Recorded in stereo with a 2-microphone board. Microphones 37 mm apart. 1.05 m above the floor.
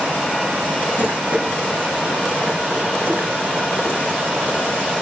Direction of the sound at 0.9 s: 70° right (ahead or behind).